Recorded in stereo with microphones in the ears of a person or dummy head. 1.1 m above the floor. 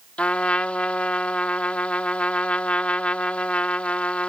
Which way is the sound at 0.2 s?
5° left (ahead or behind).